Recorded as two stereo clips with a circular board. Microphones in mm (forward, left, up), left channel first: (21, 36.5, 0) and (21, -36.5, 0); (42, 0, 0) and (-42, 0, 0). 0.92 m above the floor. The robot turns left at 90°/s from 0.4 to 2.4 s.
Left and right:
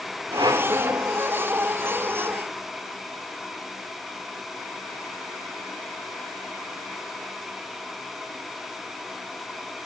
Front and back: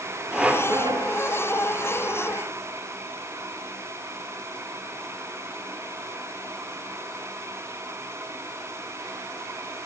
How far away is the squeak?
About 1.0 m.